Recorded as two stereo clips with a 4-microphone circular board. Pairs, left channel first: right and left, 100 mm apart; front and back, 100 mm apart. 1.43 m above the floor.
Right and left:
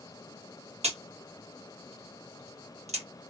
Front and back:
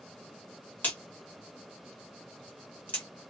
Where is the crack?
75° left, 1.4 m.